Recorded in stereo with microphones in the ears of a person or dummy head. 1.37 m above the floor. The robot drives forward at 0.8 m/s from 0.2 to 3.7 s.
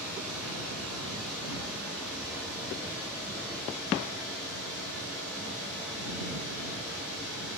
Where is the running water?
5° right (ahead or behind), 8 m.